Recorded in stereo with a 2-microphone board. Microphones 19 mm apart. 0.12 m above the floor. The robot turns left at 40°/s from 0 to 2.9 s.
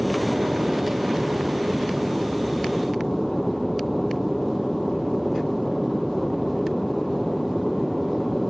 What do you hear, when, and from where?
0.0 s an aircraft: 75° right; by 8.5 s 170° left